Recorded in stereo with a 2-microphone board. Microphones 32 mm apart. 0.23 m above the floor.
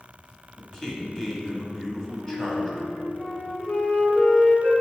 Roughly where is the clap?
I don't hear a clap.